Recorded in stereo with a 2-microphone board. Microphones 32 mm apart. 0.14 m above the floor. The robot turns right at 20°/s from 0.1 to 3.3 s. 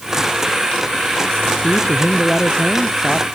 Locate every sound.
1.6 s a man speaking: 140° left; by 3.2 s 175° left